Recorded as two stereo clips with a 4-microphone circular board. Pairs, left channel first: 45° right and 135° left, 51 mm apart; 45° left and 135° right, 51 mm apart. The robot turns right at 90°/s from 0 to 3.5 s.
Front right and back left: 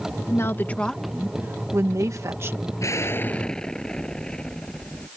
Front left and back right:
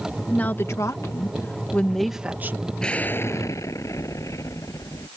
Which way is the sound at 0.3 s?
25° right.